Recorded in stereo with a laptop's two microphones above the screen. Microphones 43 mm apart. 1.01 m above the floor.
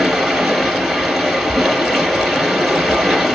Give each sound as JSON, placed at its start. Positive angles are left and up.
{"t": 0.0, "sound": "running water", "side_deg": -10, "distance_m": 2.5}